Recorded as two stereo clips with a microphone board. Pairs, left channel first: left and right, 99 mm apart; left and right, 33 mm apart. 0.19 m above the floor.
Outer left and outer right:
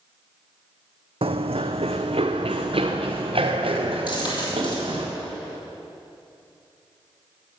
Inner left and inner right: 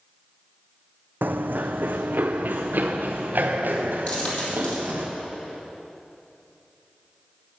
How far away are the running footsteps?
About 0.6 m.